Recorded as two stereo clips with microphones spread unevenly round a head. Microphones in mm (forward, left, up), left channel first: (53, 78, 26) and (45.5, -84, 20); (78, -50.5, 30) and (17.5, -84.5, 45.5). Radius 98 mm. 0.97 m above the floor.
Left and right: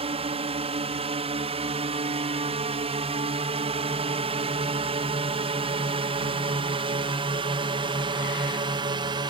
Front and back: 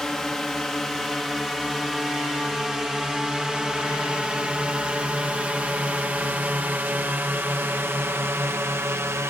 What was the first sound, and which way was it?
A drone, 50° right.